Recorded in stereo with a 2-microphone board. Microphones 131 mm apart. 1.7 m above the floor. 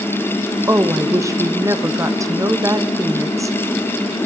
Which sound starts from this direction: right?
A woman speaking, at 0.7 s.